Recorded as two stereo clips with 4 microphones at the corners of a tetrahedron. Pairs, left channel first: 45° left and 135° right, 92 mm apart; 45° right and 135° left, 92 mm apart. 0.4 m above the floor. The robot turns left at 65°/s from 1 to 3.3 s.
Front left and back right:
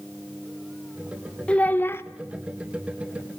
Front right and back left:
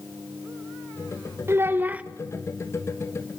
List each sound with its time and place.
1.5 s a child speaking: 110° left, 0.8 m; by 2.0 s 75° left, 0.8 m